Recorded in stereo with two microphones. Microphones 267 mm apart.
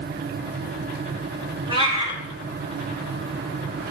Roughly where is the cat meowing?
Centre.